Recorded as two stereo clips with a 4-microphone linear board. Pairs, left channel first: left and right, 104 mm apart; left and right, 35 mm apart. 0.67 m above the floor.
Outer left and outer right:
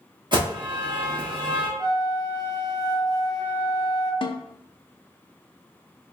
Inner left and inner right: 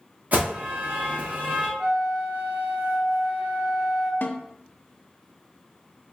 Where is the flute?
40° right (ahead or behind), 1.5 m.